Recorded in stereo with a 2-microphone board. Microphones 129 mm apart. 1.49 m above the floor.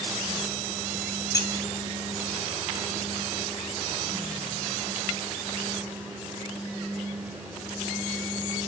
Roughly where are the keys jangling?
Left.